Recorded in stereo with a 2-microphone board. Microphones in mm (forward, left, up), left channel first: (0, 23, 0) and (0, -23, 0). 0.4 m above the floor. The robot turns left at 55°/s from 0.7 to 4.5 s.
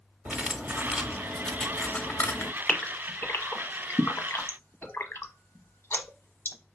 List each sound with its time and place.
0.2 s cutlery clinking: 145° right, 0.9 m; by 2.5 s 115° left, 0.9 m
2.7 s a gasp: 15° left (ahead or behind), 0.9 m; by 6.6 s 65° left (ahead or behind), 0.9 m